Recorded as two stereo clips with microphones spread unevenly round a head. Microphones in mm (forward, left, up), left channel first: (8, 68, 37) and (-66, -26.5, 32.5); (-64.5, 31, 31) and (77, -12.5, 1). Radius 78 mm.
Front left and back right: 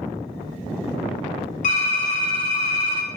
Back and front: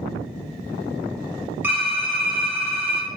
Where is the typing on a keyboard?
55° left, 2 m.